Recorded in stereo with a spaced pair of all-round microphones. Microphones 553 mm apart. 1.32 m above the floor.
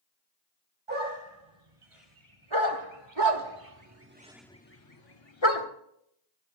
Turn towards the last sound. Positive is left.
turn(degrees=60)  # may be behind; listen again after turning